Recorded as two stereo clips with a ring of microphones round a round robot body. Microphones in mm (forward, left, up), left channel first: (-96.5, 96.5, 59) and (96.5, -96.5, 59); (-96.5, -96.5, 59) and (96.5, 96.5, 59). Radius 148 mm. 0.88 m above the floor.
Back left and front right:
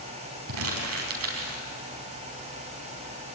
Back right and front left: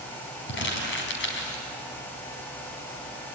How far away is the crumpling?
About 4.5 m.